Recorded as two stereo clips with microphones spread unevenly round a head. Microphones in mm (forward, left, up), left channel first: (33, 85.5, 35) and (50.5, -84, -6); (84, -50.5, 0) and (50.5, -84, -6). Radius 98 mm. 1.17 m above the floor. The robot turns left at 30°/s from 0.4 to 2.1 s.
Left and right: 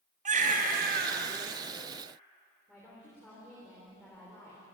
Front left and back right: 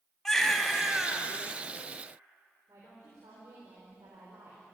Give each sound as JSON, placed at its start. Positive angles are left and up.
{"t": 0.2, "sound": "a baby crying", "azimuth_deg": -35, "distance_m": 3.0}
{"t": 2.7, "sound": "a woman speaking", "azimuth_deg": -175, "distance_m": 3.5}